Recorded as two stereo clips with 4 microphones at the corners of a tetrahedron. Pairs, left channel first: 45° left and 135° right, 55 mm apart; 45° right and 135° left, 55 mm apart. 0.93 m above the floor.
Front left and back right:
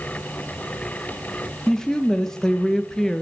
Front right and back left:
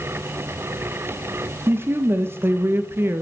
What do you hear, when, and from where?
1.7 s a woman speaking: 120° left, 0.6 m